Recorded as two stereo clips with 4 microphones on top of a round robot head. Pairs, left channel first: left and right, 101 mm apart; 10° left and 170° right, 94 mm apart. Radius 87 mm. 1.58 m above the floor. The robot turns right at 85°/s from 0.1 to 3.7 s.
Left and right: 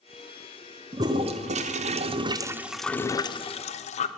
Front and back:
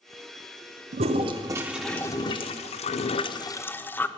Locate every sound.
0.9 s a toilet flushing: 160° right, 0.6 m; by 4.1 s 75° left, 0.6 m